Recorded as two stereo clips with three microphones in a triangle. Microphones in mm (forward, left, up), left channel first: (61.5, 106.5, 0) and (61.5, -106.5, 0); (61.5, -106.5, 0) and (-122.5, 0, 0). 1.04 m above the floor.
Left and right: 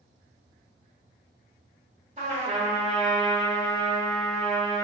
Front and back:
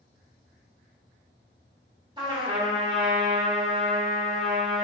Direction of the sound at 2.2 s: 140° right.